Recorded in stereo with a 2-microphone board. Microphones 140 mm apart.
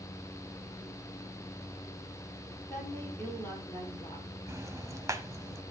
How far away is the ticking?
About 1.1 m.